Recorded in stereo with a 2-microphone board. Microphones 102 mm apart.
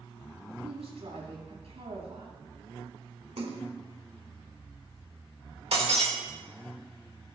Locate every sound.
0.6 s a woman speaking: 90° right, 5.5 m
3.4 s a splash: 70° right (ahead or behind), 1.5 m
5.7 s breaking glass: 80° right, 3 m